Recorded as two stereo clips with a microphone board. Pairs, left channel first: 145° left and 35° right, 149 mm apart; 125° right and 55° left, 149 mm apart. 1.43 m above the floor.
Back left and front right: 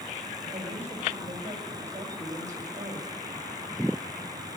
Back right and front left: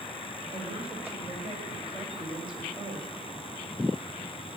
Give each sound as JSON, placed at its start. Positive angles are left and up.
{"t": 0.5, "sound": "a woman speaking", "azimuth_deg": 10, "distance_m": 6.0}